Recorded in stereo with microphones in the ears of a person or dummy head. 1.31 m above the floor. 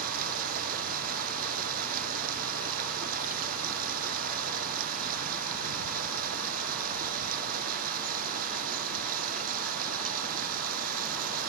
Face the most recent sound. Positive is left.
turn(degrees=-45)  # may be behind; listen again after turning